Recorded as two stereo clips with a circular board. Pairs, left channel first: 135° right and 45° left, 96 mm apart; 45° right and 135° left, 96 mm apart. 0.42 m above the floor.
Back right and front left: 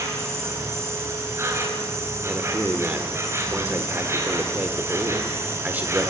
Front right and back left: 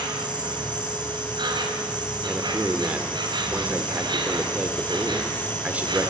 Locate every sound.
0.0 s an insect: 105° left, 4 m
2.2 s a man speaking: 90° left, 1.4 m